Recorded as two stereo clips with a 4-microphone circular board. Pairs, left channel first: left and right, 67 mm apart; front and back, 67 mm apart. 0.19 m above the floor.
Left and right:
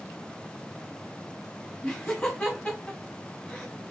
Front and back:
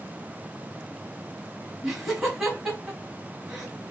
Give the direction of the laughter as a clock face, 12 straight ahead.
9 o'clock.